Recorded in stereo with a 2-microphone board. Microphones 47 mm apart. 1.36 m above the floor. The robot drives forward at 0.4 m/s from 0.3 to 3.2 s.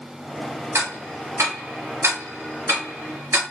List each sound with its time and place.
0.8 s ticking: 75° right (ahead or behind), 1.8 m; by 3.4 s 50° right (ahead or behind), 2 m